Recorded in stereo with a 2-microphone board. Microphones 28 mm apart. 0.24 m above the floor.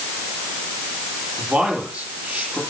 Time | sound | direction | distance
1.4 | a man speaking | 80° right | 8 m